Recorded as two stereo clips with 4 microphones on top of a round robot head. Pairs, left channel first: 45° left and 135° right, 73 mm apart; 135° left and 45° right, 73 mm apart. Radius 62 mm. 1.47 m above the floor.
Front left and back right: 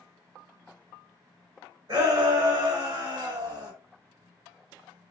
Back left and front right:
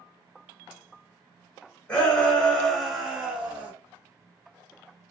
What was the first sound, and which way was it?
A shout, 165° right.